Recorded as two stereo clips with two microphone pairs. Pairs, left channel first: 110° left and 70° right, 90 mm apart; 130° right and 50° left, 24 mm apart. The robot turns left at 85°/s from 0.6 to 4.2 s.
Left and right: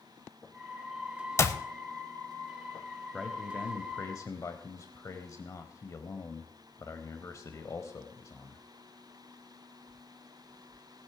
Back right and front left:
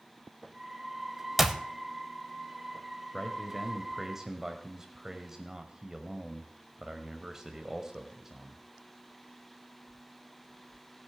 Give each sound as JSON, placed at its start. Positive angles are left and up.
{"t": 1.4, "sound": "a clap", "azimuth_deg": 125, "distance_m": 0.8}
{"t": 3.1, "sound": "a man speaking", "azimuth_deg": -165, "distance_m": 1.0}